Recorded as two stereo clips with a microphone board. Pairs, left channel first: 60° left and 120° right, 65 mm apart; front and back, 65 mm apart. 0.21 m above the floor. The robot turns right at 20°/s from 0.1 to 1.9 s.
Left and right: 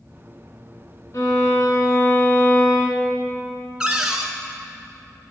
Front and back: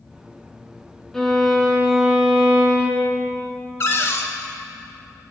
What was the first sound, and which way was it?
A violin, 80° left.